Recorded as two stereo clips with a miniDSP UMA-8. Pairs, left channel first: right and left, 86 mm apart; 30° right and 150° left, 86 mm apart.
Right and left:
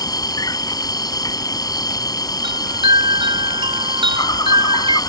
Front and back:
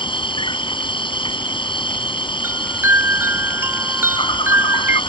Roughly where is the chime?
Left.